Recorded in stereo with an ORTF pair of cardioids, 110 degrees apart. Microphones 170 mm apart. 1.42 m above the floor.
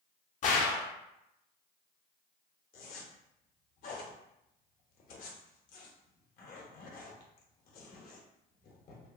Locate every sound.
0.4 s a gunshot: 50° left, 0.5 m
2.7 s a zipper: 60° left, 0.8 m